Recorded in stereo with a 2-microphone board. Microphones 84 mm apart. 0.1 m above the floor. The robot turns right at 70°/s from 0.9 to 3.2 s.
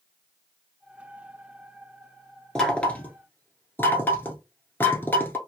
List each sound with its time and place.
2.5 s knocking: 5° left (ahead or behind), 1.0 m; by 5.4 s 25° left (ahead or behind), 1.0 m